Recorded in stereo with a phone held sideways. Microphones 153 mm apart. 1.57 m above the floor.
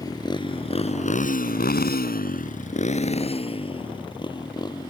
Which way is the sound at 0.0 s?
25° left (ahead or behind).